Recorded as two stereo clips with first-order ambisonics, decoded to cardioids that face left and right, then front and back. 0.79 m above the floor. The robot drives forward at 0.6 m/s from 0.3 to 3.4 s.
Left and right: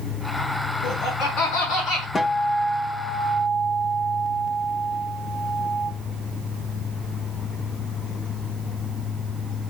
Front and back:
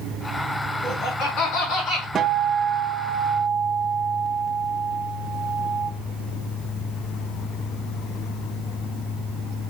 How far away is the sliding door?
No sliding door in this recording.